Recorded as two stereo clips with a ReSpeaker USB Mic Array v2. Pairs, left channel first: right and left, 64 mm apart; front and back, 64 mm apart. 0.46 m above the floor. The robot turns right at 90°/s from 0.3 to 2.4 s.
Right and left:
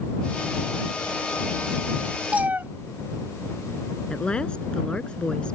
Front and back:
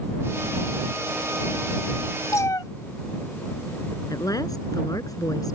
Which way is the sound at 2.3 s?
20° left.